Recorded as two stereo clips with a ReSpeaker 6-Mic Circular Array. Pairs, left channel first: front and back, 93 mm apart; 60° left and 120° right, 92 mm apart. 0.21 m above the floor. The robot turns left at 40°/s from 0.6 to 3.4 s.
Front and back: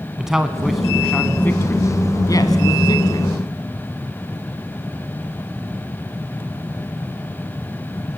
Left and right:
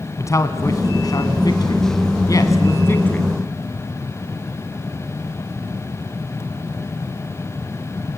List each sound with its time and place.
0.2 s a man speaking: 100° left, 1.5 m; by 3.3 s 10° right, 1.5 m